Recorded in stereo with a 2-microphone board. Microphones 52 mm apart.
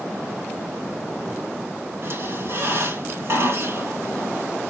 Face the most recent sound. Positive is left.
turn(degrees=-50)  # may be behind; listen again after turning